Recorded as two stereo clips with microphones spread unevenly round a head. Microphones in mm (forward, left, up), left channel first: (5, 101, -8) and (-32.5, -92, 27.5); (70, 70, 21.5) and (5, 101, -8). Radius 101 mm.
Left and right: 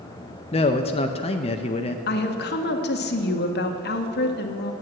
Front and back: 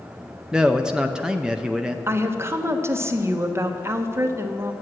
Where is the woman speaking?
110° left, 1.2 m.